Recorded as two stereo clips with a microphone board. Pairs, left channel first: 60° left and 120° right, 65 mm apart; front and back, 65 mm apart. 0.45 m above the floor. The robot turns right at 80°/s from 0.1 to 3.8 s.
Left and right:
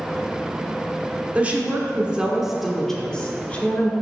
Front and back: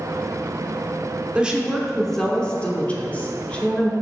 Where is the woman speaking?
135° right, 1.2 m; by 3.9 s 60° left, 1.2 m.